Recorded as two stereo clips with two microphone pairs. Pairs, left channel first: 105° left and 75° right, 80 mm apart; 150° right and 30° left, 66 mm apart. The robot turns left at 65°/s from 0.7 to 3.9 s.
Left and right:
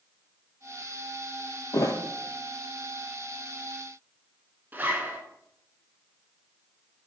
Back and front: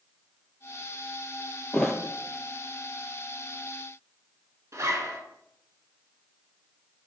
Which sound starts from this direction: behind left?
A thud, at 1.7 s.